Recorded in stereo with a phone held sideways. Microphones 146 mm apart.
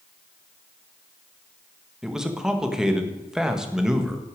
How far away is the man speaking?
About 1.5 m.